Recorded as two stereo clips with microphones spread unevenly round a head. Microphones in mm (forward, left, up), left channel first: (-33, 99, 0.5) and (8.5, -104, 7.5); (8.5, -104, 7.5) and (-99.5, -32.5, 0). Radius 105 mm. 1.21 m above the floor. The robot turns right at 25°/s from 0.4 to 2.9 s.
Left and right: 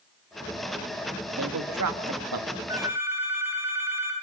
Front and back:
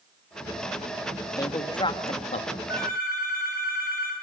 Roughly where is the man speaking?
Right.